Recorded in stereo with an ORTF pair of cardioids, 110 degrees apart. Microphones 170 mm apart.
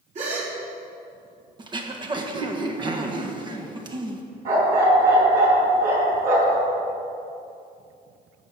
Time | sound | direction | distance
0.1 | a gasp | 45° right | 3.5 m
1.6 | throat clearing | 30° right | 1.4 m
4.5 | a dog barking | 60° right | 5 m